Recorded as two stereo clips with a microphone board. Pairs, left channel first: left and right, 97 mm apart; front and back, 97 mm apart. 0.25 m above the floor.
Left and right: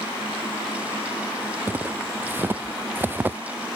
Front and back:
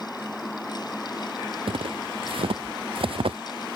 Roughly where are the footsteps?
Behind.